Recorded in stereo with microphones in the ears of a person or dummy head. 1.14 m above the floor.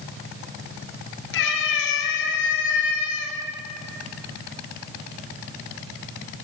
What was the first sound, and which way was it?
A cat meowing, 75° left (ahead or behind).